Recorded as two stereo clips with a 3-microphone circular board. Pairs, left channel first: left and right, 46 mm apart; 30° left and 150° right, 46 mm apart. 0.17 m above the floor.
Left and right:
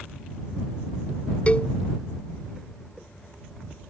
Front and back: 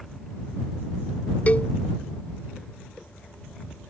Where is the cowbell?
50° left.